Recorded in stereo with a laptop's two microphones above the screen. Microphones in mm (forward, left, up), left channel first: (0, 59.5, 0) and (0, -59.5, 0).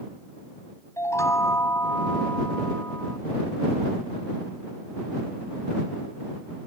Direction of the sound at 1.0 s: 25° left (ahead or behind).